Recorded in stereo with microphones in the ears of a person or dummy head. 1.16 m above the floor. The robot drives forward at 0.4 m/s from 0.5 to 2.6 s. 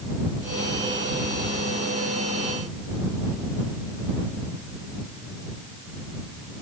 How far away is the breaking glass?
I don't hear breaking glass.